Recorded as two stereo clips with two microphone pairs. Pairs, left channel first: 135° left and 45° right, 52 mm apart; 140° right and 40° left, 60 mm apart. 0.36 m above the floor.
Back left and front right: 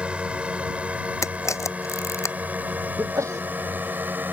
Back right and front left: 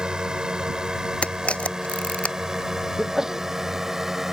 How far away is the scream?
I don't hear a scream.